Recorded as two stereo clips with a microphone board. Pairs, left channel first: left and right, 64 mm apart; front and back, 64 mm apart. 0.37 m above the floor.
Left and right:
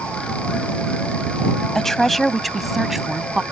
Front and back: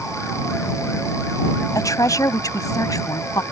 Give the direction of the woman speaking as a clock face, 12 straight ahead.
12 o'clock.